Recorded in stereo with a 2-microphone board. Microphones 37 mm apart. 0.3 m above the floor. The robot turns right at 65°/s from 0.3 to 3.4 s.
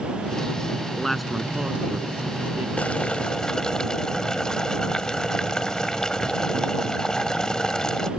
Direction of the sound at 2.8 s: 105° left.